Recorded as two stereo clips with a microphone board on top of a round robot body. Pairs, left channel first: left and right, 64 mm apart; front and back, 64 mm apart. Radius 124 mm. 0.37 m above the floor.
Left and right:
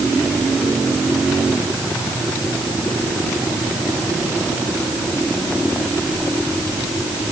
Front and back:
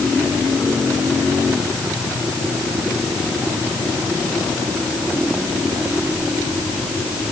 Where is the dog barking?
I don't hear a dog barking.